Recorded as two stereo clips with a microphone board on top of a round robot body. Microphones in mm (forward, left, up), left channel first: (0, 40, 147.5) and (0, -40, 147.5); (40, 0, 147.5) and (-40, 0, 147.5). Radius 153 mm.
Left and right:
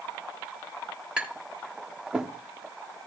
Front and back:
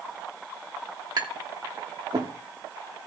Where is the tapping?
170° right, 2.5 m.